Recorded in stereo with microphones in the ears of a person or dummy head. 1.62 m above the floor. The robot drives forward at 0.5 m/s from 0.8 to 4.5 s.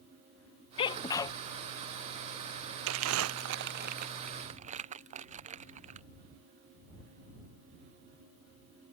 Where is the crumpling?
80° right; by 6.1 s 35° right (ahead or behind).